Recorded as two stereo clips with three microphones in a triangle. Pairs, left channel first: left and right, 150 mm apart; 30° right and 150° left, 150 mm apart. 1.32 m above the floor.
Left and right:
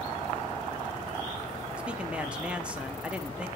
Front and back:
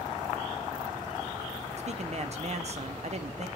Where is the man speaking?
170° right, 0.8 m.